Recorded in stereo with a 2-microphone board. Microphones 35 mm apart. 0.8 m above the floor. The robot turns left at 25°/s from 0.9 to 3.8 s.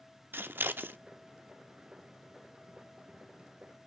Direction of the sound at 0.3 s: 85° right.